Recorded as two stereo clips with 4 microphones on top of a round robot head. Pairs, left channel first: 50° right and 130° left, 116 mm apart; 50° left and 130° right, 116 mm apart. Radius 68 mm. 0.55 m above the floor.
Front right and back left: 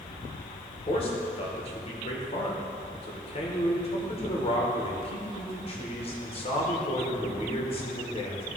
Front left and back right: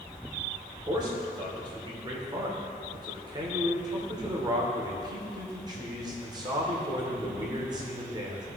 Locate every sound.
0.9 s a man speaking: 80° right, 1.6 m